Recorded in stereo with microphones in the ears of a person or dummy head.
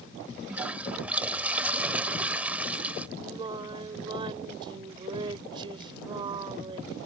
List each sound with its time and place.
0.5 s a toilet flushing: 10° right (ahead or behind)
3.2 s singing: 25° right (ahead or behind)